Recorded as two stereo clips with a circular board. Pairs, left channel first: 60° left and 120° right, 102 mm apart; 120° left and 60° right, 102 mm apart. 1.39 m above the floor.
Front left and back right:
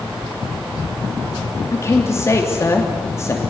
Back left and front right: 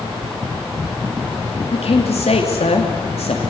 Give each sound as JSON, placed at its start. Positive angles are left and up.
{"t": 1.7, "sound": "a man speaking", "azimuth_deg": 120, "distance_m": 3.0}